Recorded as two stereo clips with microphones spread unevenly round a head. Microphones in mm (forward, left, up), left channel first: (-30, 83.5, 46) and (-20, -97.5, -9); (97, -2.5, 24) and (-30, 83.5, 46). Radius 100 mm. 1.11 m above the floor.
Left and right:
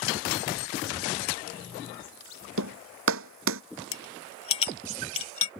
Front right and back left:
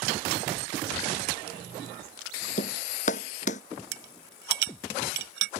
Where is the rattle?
150° left.